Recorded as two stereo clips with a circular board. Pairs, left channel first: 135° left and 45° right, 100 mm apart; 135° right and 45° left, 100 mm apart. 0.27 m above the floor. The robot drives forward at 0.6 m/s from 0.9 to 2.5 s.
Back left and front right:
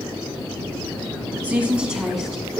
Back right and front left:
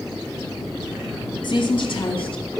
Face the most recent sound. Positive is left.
turn(degrees=-135)